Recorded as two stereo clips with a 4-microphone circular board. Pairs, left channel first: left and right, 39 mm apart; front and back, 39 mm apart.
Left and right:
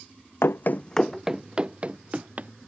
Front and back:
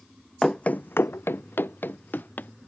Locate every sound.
0.4 s running footsteps: 75° left; by 2.5 s 40° right